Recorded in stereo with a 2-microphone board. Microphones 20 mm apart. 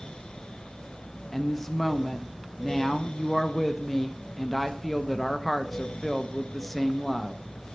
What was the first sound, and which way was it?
A woman speaking, 15° left (ahead or behind).